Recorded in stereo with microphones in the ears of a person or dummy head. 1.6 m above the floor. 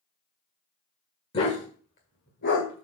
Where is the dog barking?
35° left (ahead or behind), 1.7 m; by 2.9 s 60° left (ahead or behind), 2 m.